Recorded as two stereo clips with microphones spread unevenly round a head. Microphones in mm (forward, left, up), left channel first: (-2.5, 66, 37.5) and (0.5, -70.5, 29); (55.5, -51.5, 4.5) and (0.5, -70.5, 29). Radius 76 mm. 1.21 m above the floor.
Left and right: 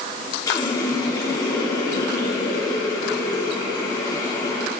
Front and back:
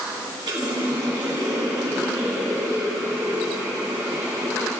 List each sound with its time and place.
0.5 s a running tap: 155° left, 2 m